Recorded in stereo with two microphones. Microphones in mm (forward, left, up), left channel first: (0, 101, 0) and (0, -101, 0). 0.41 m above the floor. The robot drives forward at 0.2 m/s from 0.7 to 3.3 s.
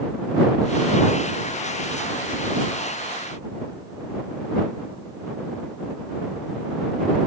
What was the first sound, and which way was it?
Only background noise.